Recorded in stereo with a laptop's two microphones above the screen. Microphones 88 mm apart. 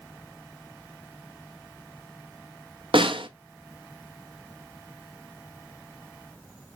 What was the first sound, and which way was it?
A snare drum, 75° right (ahead or behind).